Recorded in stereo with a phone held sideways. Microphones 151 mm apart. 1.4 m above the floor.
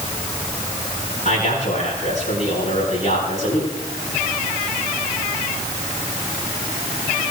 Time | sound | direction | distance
1.2 | a man speaking | 60° left (ahead or behind) | 8.5 m